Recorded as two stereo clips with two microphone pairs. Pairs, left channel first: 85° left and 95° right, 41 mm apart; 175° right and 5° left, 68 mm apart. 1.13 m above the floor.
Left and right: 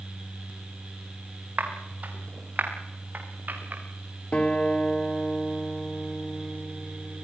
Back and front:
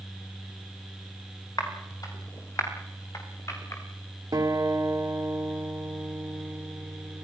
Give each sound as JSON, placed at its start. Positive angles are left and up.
{"t": 1.6, "sound": "footsteps", "azimuth_deg": -140, "distance_m": 7.5}
{"t": 4.3, "sound": "a guitar", "azimuth_deg": 30, "distance_m": 3.0}